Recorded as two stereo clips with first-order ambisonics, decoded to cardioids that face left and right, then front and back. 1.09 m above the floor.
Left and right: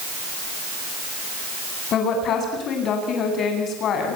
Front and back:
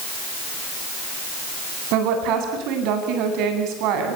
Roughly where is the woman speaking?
Behind left.